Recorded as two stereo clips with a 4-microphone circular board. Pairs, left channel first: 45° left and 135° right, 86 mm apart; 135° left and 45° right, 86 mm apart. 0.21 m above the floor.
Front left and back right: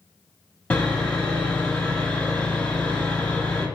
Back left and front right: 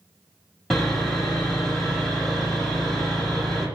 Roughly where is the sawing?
Left.